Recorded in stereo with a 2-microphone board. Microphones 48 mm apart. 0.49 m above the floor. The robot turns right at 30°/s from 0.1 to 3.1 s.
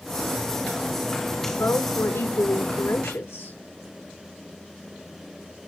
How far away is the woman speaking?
About 5 m.